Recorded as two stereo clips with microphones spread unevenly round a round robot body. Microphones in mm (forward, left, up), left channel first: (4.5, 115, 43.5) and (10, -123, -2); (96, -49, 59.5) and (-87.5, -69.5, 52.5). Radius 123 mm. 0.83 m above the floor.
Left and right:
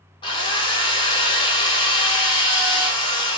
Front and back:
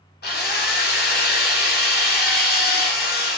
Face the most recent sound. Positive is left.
turn(degrees=15)